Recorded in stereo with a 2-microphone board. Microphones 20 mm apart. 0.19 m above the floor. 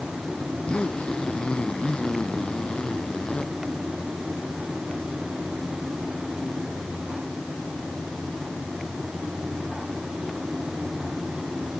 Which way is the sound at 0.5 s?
65° left (ahead or behind).